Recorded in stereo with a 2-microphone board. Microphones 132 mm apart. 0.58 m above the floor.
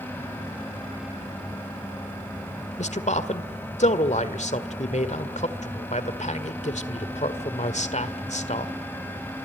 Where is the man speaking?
60° left (ahead or behind), 1.7 m.